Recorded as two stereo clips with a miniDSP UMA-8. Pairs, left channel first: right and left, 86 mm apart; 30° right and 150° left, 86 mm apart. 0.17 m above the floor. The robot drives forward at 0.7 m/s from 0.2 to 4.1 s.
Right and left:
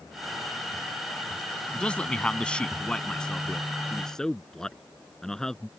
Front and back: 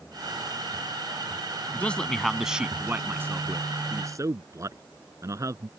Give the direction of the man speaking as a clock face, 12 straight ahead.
1 o'clock.